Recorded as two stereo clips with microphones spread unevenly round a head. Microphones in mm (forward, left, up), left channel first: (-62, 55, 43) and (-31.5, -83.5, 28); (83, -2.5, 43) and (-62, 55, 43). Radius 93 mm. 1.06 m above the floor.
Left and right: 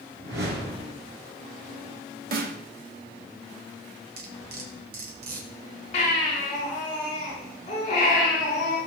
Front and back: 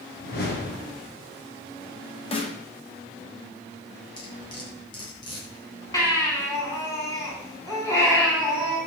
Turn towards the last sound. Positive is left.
turn(degrees=50)